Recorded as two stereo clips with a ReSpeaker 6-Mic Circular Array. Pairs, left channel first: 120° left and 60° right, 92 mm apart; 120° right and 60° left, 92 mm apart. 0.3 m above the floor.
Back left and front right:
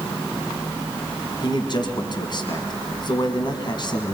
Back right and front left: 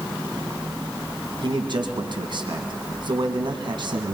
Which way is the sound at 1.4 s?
85° left.